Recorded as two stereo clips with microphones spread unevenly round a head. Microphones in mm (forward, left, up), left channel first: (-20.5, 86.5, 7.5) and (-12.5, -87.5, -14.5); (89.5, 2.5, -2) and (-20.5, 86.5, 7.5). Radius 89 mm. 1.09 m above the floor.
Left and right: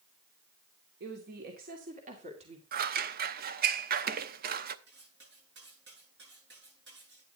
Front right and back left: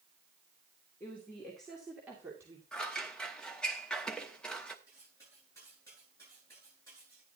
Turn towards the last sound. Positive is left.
turn(degrees=-115)